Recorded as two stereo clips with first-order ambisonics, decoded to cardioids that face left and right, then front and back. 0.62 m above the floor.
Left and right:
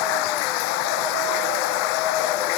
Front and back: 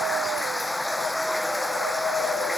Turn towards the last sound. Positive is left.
turn(degrees=85)